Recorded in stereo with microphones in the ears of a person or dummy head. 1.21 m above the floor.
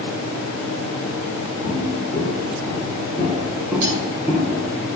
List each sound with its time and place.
1.6 s footsteps: 20° left (ahead or behind), 5.5 m; by 4.8 s 20° right (ahead or behind), 7 m
3.8 s cutlery clinking: 65° right (ahead or behind), 6.5 m